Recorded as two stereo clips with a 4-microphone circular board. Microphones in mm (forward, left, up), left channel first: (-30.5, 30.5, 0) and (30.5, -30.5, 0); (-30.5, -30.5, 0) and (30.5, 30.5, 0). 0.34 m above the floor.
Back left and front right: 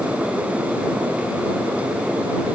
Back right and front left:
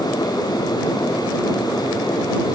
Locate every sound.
Only background noise.